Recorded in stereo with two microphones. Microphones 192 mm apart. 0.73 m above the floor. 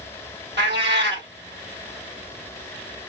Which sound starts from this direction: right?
A cat meowing, at 0.6 s.